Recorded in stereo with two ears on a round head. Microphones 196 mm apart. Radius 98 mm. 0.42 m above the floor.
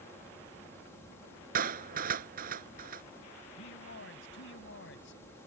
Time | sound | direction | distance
1.6 | a clap | 45° right (ahead or behind) | ?
3.6 | a man speaking | 60° left (ahead or behind) | ?